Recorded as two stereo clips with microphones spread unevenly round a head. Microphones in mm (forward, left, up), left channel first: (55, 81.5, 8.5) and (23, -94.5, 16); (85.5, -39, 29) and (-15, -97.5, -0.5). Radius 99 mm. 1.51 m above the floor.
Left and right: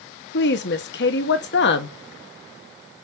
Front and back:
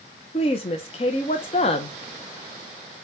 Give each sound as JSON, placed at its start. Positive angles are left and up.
{"t": 0.3, "sound": "a woman speaking", "azimuth_deg": 65, "distance_m": 0.7}